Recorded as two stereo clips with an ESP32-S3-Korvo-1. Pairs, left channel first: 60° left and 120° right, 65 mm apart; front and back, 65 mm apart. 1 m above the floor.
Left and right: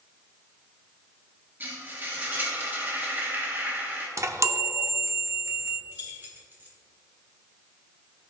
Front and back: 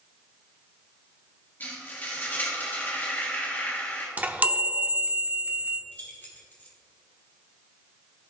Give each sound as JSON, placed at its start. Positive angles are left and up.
{"t": 1.6, "sound": "frying", "azimuth_deg": -60, "distance_m": 1.5}
{"t": 4.2, "sound": "a chime", "azimuth_deg": -125, "distance_m": 0.7}
{"t": 5.9, "sound": "keys jangling", "azimuth_deg": -65, "distance_m": 1.7}